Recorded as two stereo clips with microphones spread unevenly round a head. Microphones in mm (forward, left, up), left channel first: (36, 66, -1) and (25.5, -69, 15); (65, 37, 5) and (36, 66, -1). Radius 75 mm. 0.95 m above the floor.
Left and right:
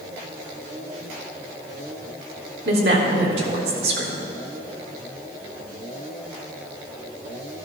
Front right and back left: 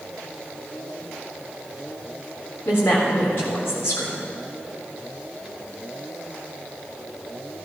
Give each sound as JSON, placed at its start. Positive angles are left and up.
{"t": 2.6, "sound": "a woman speaking", "azimuth_deg": -110, "distance_m": 3.5}